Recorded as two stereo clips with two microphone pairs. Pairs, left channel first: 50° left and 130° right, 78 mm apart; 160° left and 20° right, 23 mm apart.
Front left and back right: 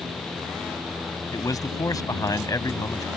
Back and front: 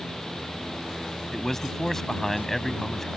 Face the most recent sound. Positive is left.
turn(degrees=85)